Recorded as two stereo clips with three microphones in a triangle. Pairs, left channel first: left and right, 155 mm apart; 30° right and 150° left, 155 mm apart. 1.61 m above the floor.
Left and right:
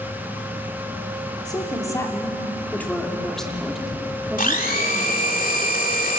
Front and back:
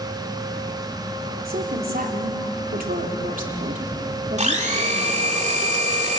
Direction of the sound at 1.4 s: 155° left.